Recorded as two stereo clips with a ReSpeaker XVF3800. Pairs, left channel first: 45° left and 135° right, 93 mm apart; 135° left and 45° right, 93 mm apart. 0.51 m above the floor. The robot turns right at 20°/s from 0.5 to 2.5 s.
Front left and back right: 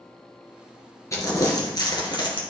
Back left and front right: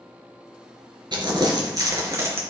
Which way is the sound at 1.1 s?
10° right.